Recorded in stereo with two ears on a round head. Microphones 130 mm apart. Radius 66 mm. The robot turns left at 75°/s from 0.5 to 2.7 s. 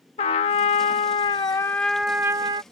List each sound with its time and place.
0.2 s a trumpet: 110° left; by 2.6 s 50° right